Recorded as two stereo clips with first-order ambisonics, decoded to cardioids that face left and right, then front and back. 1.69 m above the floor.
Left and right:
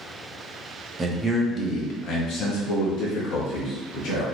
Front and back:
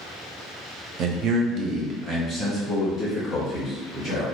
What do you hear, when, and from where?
1.0 s a man speaking: 160° right, 0.5 m; by 4.2 s 100° left, 1.6 m